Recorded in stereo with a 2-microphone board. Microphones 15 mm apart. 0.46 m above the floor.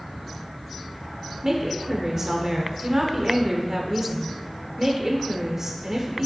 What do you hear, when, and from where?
1.4 s a woman speaking: 25° right (ahead or behind), 1.3 m